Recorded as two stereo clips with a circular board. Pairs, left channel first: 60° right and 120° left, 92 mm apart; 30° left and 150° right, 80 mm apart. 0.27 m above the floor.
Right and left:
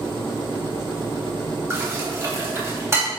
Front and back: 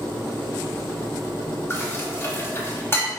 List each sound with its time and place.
1.7 s dishes clattering: 75° left, 0.9 m